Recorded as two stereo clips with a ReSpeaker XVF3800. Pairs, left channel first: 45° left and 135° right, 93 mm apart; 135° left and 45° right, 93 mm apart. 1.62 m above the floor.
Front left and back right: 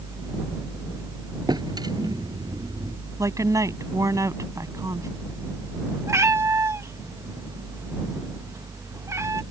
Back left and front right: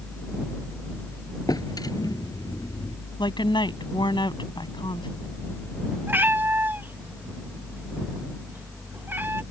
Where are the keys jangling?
No keys jangling in this recording.